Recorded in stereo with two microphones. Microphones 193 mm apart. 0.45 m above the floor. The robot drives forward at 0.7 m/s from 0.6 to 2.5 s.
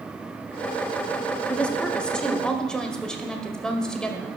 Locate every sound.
1.5 s a woman speaking: 5° left (ahead or behind), 0.9 m